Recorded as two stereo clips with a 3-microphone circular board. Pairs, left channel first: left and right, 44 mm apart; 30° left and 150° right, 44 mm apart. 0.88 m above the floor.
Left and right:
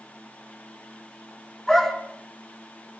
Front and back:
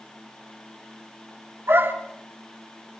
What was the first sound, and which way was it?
A dog barking, 175° left.